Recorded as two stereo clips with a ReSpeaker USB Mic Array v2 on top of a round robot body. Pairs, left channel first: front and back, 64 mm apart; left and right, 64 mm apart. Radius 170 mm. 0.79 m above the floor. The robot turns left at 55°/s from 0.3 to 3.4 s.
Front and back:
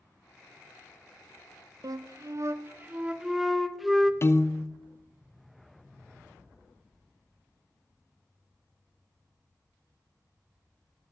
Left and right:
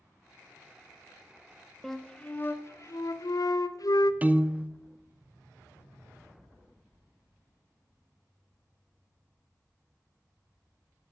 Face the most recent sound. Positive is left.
turn(degrees=-30)